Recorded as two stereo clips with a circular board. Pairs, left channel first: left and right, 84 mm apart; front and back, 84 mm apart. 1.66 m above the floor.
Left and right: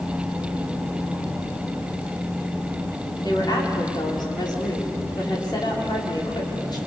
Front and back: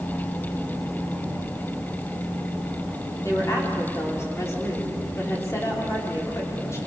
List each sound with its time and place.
3.2 s a woman speaking: 55° left, 5.5 m